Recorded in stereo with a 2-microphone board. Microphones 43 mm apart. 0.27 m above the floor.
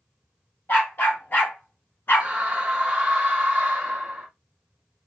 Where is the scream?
25° right (ahead or behind), 1.3 m.